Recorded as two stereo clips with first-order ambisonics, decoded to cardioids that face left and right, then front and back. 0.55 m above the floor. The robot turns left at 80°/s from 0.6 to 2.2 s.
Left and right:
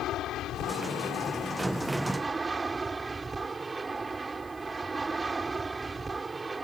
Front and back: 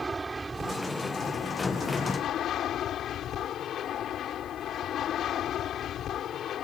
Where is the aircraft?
105° left; by 6.7 s 25° right.